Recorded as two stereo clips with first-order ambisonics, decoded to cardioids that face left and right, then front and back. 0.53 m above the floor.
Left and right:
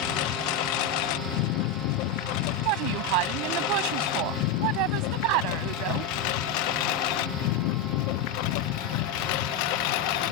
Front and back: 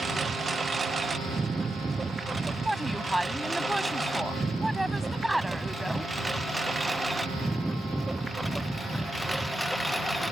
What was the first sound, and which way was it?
A lawn mower, 105° left.